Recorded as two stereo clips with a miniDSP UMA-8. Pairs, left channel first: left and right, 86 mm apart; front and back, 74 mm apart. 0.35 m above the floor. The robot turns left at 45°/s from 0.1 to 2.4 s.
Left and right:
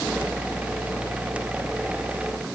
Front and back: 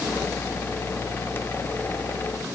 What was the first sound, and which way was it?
Only background noise.